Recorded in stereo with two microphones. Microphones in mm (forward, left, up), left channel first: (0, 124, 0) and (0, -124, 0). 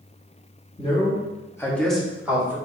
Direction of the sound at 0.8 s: 25° left (ahead or behind).